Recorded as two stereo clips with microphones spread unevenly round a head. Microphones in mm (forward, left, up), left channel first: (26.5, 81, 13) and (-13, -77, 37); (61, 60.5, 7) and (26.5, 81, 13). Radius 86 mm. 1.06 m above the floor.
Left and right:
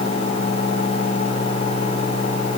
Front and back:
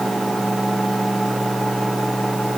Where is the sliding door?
No sliding door in this recording.